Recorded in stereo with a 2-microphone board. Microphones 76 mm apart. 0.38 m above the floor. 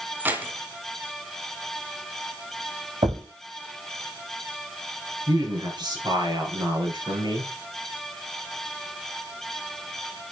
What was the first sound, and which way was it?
Keys jangling, 25° right (ahead or behind).